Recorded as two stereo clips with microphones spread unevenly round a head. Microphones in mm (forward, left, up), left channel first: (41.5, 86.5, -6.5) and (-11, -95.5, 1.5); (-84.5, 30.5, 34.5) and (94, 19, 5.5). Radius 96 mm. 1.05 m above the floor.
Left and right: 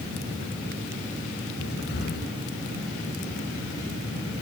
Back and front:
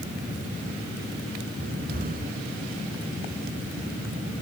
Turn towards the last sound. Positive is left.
turn(degrees=35)